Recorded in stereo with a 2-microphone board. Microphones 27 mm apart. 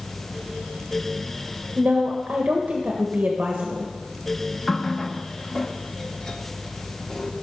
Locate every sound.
1.8 s a woman speaking: 65° right (ahead or behind), 1.5 m
4.7 s a running tap: 20° left (ahead or behind), 1.0 m